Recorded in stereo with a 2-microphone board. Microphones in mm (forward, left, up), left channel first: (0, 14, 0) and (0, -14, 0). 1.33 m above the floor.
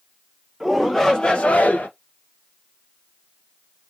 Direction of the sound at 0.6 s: Centre (ahead or behind).